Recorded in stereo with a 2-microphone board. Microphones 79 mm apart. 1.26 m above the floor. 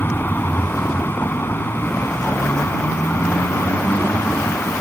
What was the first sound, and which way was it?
A vehicle, 30° left (ahead or behind).